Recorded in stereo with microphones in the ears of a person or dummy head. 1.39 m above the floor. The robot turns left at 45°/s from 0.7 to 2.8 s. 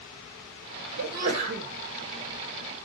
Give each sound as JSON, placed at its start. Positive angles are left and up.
{"t": 1.0, "sound": "a sneeze", "azimuth_deg": -125, "distance_m": 1.5}